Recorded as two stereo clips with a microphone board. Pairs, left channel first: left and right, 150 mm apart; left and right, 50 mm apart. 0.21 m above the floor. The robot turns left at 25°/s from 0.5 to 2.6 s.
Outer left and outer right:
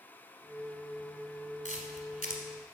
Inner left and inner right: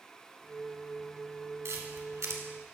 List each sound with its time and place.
1.6 s a camera shutter: 50° right (ahead or behind), 1.5 m; by 2.4 s 60° right (ahead or behind), 1.5 m